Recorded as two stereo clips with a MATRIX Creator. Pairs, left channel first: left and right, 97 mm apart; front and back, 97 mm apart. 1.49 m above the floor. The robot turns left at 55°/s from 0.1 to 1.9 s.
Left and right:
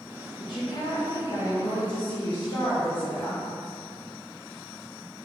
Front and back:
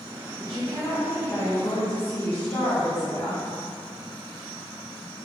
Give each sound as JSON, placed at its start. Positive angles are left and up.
{"t": 0.4, "sound": "a woman speaking", "azimuth_deg": 130, "distance_m": 1.4}